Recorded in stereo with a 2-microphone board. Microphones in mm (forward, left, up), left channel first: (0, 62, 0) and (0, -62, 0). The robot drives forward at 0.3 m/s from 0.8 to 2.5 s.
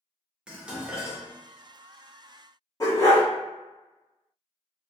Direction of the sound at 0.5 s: 5° right (ahead or behind).